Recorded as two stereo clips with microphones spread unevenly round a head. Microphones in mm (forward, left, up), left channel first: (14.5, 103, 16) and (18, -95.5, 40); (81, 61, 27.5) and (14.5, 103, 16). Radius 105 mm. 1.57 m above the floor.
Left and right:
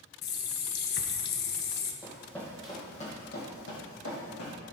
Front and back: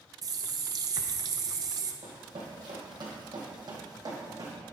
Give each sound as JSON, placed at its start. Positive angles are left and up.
{"t": 0.2, "sound": "a running tap", "azimuth_deg": 125, "distance_m": 0.8}
{"t": 2.0, "sound": "running footsteps", "azimuth_deg": -165, "distance_m": 2.5}